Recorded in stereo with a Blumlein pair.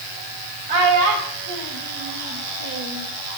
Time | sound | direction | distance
0.7 | a child speaking | 55° right | 4 m